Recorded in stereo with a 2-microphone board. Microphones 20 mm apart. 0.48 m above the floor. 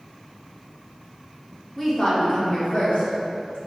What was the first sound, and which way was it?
A woman speaking, 10° left (ahead or behind).